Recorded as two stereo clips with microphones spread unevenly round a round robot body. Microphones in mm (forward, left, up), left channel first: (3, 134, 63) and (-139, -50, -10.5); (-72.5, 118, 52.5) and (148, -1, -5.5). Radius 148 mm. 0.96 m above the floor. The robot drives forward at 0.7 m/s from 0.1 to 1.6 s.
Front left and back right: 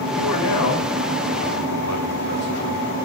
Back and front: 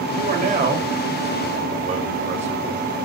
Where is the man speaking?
30° left, 4.5 m; by 3.0 s 35° left, 3.5 m.